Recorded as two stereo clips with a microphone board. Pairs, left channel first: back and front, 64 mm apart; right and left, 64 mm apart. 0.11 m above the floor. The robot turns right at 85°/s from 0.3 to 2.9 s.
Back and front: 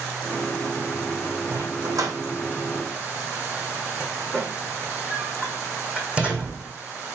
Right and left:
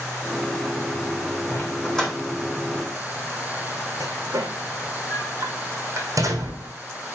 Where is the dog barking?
55° right, 2.5 m; by 6.7 s 65° left, 2.5 m.